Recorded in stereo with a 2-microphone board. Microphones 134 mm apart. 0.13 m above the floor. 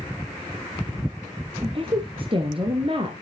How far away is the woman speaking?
About 1.8 m.